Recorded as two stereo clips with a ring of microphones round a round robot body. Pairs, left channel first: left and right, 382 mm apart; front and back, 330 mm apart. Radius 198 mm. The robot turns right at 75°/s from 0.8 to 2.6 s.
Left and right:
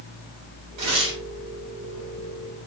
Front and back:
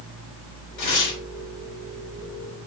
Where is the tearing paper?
45° right, 3.5 m; by 1.2 s 15° right, 3.5 m.